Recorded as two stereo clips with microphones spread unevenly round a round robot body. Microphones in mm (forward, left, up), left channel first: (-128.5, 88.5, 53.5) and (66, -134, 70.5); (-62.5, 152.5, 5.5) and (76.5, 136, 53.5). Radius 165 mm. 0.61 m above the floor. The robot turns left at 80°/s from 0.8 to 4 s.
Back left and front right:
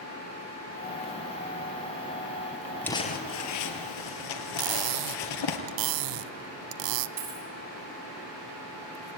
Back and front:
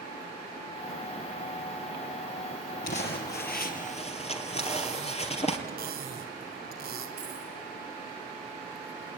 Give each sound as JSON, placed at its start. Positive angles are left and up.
{"t": 2.8, "sound": "crumpling", "azimuth_deg": -145, "distance_m": 2.5}
{"t": 4.6, "sound": "cutlery clinking", "azimuth_deg": -60, "distance_m": 0.7}
{"t": 7.2, "sound": "a dropped coin", "azimuth_deg": -85, "distance_m": 6.0}